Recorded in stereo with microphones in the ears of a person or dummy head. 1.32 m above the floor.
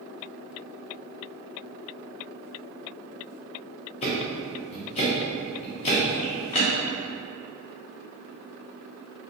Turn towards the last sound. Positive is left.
turn(degrees=30)  # may be behind; listen again after turning